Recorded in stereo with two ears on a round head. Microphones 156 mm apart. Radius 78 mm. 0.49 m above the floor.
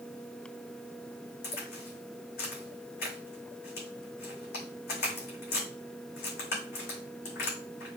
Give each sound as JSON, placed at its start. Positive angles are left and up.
{"t": 1.4, "sound": "a crack", "side_deg": 60, "distance_m": 5.0}